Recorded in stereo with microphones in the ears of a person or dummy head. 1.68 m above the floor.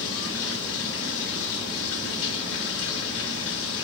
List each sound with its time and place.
0.0 s running water: 70° left (ahead or behind), 2.5 m